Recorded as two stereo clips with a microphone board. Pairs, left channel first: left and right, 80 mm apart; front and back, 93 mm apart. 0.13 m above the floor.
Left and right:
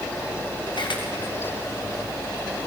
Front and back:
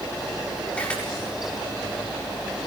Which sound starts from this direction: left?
A camera shutter, at 0.7 s.